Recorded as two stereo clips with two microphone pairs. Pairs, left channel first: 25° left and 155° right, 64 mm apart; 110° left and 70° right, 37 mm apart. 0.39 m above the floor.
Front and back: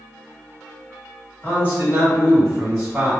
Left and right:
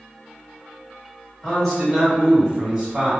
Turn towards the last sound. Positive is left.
turn(degrees=-85)